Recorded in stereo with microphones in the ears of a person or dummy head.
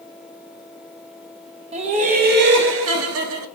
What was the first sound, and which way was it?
Laughter, 30° right (ahead or behind).